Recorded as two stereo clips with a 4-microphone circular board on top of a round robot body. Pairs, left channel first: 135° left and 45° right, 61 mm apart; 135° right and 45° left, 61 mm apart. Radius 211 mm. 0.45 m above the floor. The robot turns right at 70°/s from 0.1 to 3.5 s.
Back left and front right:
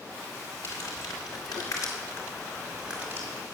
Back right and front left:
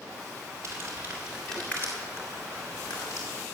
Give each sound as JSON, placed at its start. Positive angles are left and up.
{"t": 0.6, "sound": "crumpling", "azimuth_deg": 85, "distance_m": 2.0}